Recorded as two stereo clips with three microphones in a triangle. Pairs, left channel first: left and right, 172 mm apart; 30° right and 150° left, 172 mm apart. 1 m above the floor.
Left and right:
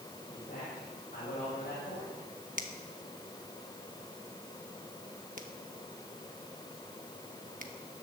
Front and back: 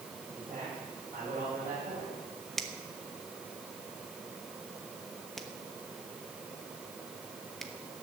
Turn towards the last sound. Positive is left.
turn(degrees=-120)